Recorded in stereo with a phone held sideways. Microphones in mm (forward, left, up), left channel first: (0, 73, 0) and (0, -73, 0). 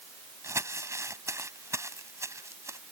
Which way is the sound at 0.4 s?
20° right (ahead or behind).